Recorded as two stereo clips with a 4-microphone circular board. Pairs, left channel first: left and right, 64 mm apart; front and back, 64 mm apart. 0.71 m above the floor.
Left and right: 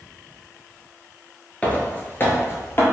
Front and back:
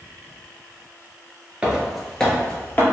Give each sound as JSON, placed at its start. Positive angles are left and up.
{"t": 1.6, "sound": "footsteps", "azimuth_deg": 125, "distance_m": 0.7}